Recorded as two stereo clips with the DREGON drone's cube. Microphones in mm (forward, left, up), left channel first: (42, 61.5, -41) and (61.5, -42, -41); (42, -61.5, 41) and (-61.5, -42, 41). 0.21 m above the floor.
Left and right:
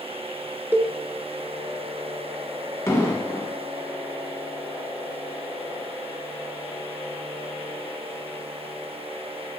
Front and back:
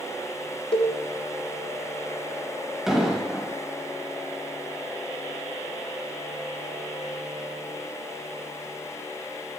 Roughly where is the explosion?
Left.